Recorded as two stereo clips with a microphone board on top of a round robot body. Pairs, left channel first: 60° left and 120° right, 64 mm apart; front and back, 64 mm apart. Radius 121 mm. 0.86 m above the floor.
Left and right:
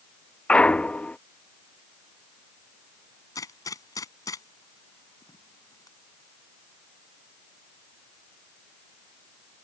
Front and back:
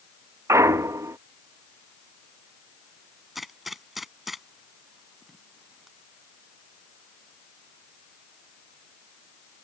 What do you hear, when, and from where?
0.5 s a clunk: 135° left
3.4 s a gunshot: 95° left